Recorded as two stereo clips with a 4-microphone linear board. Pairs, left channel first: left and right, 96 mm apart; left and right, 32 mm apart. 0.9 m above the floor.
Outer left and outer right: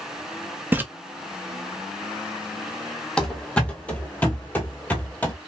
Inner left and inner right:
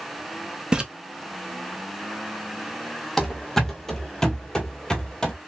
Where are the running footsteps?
10° left (ahead or behind), 1.1 m; by 5.3 s 20° left (ahead or behind), 1.0 m.